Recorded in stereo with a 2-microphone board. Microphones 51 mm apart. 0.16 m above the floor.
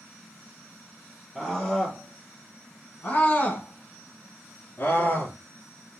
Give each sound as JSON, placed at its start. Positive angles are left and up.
{"t": 1.4, "sound": "a scream", "side_deg": 10, "distance_m": 1.9}